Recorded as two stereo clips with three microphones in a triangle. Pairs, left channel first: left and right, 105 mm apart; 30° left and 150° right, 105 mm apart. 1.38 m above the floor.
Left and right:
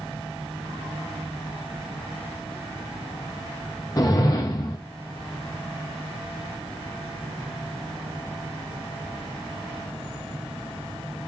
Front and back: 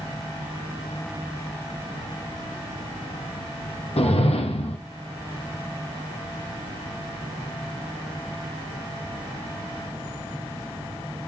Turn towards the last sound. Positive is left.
turn(degrees=40)